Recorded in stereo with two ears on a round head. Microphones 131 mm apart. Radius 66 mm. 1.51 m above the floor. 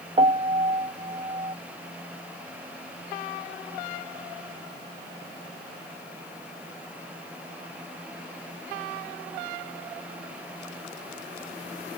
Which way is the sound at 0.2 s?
35° right (ahead or behind).